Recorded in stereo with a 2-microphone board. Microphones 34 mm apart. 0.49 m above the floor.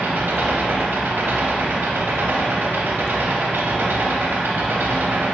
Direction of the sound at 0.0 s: 90° right.